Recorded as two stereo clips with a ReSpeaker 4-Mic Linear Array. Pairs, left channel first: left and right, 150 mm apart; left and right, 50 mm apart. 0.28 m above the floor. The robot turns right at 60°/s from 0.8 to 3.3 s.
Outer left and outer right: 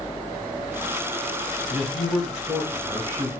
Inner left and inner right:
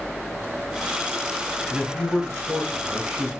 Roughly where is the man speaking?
Centre.